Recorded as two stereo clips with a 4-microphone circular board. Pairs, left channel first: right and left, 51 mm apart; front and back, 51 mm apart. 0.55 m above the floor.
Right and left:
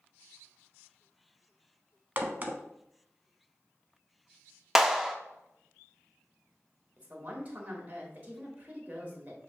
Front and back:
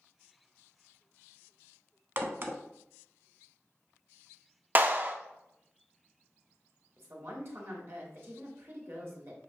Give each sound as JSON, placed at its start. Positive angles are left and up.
{"t": 2.2, "sound": "a crack", "azimuth_deg": 140, "distance_m": 0.7}
{"t": 4.8, "sound": "a clap", "azimuth_deg": 170, "distance_m": 0.5}
{"t": 7.0, "sound": "a woman speaking", "azimuth_deg": 145, "distance_m": 1.6}